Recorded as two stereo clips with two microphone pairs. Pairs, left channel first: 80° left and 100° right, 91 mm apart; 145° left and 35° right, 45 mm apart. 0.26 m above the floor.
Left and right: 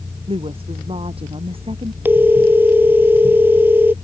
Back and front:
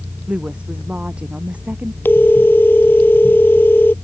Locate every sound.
0.3 s a woman speaking: 100° right; by 1.9 s 95° right
2.0 s a phone ringing: 170° right